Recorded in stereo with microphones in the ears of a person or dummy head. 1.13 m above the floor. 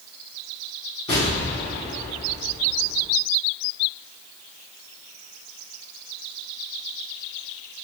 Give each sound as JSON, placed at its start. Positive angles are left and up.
{"t": 1.1, "sound": "an explosion", "side_deg": 30, "distance_m": 1.8}